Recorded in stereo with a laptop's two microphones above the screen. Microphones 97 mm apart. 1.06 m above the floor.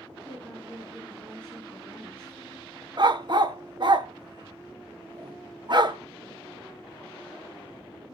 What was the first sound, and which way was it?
A woman speaking, 20° right (ahead or behind).